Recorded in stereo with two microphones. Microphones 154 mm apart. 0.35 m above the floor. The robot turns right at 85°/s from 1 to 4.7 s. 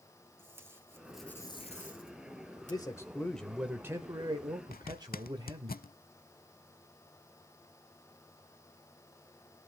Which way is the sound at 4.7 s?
75° left (ahead or behind).